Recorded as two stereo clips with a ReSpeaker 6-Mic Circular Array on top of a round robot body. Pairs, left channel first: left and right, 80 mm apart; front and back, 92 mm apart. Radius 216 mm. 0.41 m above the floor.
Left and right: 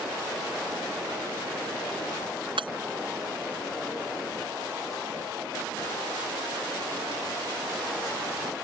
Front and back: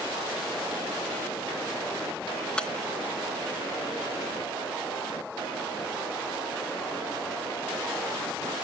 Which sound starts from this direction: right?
Breaking glass, at 2.6 s.